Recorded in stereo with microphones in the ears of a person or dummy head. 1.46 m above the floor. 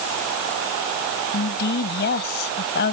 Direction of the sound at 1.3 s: 50° left (ahead or behind).